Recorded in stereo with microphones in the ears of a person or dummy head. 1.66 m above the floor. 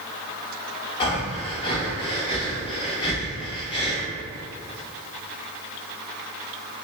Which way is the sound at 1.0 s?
30° left (ahead or behind).